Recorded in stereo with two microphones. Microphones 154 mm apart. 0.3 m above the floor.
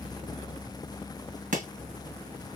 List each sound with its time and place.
1.5 s chopping: 55° right (ahead or behind), 2.5 m